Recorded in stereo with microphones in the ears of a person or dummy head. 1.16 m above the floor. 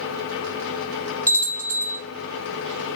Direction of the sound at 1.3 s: 5° left (ahead or behind).